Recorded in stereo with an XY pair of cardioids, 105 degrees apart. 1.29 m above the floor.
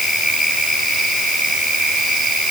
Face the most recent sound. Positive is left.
No sound to turn to.